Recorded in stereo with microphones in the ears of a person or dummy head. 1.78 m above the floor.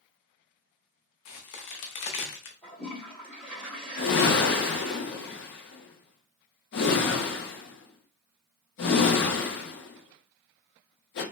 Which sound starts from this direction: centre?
A toilet flushing, at 2.6 s.